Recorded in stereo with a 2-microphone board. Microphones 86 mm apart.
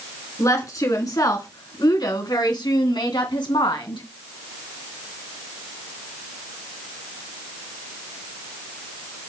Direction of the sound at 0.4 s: 40° left (ahead or behind).